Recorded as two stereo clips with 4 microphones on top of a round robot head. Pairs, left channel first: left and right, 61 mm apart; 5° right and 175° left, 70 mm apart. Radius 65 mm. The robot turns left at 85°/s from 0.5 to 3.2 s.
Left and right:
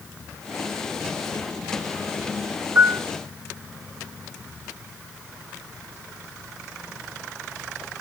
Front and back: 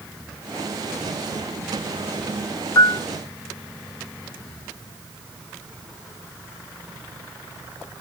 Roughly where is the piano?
Ahead right.